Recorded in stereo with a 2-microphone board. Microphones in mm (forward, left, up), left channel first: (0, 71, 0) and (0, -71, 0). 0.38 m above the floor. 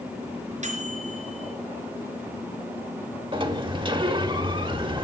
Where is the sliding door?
35° right (ahead or behind), 1.0 m.